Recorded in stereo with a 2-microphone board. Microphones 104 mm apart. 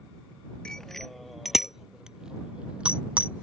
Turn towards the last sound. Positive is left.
turn(degrees=-15)  # may be behind; listen again after turning